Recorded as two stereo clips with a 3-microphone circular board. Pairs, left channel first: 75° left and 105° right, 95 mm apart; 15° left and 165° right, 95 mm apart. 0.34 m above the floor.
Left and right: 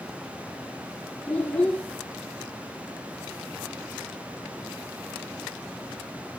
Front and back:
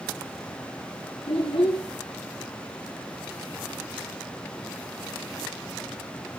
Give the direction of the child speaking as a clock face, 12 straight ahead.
12 o'clock.